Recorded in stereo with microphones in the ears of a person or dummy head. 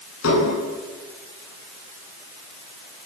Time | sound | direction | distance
0.2 | dishes clattering | 90° left | 9 m